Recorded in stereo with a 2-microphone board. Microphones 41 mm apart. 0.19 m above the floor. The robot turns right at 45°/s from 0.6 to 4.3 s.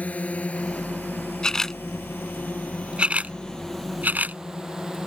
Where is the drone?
40° left (ahead or behind); by 5.1 s 15° right (ahead or behind).